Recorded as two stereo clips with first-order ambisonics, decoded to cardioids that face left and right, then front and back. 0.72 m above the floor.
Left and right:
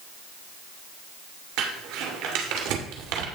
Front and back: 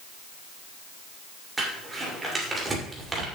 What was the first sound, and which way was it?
Crumpling, 105° right.